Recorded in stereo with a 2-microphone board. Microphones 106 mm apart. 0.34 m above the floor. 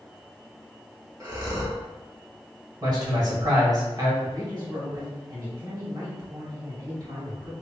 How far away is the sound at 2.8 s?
About 1.3 m.